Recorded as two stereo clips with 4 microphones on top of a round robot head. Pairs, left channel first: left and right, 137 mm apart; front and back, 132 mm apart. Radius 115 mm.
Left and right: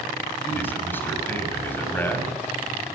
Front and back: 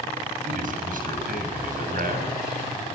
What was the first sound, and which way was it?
A man speaking, 165° left.